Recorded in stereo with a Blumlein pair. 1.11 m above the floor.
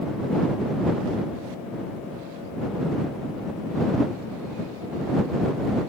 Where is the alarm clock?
No alarm clock in this recording.